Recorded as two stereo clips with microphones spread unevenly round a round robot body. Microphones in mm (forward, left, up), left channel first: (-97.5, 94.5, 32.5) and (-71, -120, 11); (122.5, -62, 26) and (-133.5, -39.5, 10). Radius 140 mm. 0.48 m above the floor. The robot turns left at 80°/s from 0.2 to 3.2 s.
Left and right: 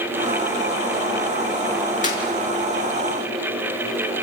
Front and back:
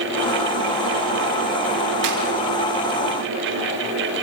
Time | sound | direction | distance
2.0 | a clap | 155° left | 6 m